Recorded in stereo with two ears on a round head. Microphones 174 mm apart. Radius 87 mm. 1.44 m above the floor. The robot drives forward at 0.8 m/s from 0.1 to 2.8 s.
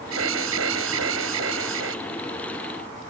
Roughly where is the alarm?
Right.